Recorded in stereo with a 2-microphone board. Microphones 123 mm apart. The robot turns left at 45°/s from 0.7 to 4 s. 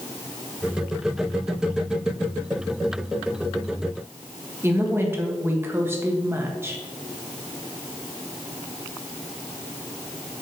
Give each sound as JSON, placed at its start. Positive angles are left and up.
{"t": 4.6, "sound": "a woman speaking", "side_deg": -20, "distance_m": 1.3}